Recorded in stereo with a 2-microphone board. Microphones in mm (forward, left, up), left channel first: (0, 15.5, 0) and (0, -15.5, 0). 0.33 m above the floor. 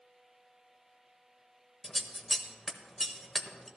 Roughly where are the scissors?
Centre.